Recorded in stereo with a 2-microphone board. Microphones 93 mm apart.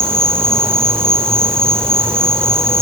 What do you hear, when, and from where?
0.0 s an insect: 25° right (ahead or behind), 9 m